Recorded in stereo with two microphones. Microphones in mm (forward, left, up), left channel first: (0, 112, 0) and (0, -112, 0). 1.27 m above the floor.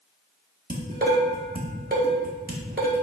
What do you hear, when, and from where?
0.7 s dishes clattering: 40° right (ahead or behind), 1.9 m